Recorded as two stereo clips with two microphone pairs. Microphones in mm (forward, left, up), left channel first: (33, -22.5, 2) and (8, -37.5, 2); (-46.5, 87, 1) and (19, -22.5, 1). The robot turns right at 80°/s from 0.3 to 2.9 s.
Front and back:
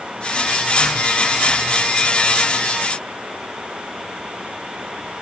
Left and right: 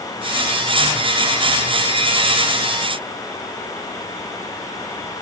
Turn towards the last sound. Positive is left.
No sound to turn to.